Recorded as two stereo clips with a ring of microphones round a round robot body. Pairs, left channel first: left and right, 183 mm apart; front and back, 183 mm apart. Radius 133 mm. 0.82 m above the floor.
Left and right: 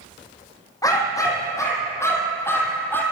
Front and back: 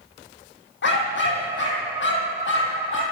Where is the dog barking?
20° left, 9.5 m; by 3.0 s 10° left, 8 m.